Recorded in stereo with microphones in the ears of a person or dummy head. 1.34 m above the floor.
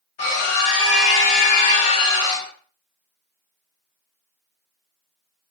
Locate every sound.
0.2 s a scream: 45° left (ahead or behind), 0.8 m; by 2.5 s 15° left (ahead or behind), 0.7 m